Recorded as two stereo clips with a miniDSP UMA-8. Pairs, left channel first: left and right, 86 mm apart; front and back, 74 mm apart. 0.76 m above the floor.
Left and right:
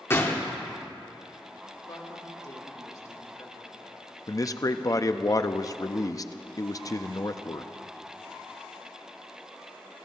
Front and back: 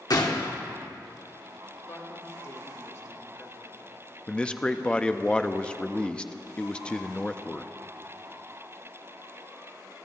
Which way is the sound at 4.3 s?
70° left.